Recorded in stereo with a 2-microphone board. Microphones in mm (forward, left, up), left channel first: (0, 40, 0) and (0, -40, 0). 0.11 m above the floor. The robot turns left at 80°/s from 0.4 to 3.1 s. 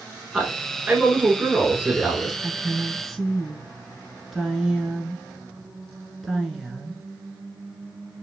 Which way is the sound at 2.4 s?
125° right.